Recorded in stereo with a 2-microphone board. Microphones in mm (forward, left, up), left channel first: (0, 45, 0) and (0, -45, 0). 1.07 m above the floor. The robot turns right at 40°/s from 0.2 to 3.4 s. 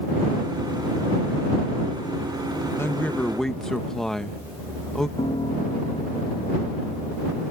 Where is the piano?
75° left (ahead or behind).